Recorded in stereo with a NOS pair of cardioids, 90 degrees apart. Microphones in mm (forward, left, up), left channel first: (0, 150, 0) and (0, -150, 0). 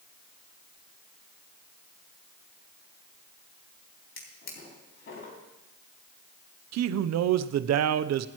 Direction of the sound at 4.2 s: 45° left.